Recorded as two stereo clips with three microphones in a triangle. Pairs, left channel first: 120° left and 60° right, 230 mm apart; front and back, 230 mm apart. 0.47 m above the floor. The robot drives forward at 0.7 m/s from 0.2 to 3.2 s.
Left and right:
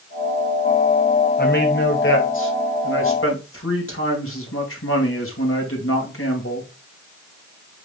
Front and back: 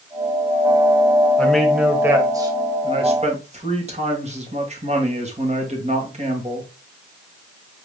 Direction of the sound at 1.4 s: 85° left.